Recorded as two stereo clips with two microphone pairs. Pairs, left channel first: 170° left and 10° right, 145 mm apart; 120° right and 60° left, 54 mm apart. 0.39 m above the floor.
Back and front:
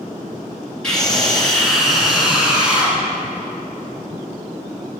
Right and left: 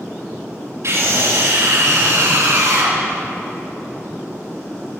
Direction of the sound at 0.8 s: 85° left.